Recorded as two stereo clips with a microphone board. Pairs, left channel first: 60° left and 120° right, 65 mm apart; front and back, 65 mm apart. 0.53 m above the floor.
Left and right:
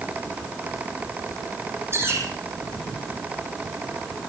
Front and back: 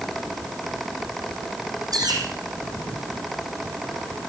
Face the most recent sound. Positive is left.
turn(degrees=-170)